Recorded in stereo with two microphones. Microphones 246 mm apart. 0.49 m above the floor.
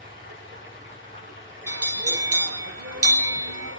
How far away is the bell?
About 0.5 m.